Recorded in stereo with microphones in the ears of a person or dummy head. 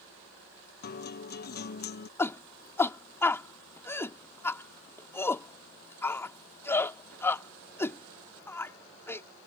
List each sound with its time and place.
0.8 s a guitar: 45° left (ahead or behind)
2.2 s a shout: 5° left (ahead or behind)